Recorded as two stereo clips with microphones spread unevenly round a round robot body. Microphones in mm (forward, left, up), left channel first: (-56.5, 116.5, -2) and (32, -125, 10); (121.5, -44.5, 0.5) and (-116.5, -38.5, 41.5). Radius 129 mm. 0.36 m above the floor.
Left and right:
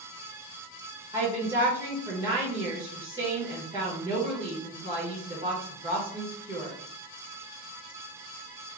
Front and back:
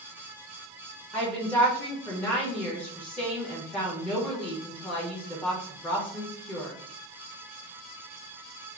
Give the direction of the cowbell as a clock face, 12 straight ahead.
I don't hear a cowbell.